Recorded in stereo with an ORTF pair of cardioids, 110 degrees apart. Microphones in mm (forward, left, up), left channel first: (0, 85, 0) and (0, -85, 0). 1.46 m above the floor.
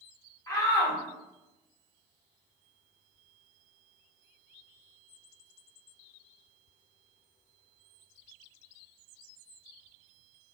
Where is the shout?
20° left, 0.9 m.